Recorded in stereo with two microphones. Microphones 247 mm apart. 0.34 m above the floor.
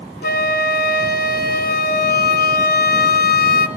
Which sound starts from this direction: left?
A flute, at 0.2 s.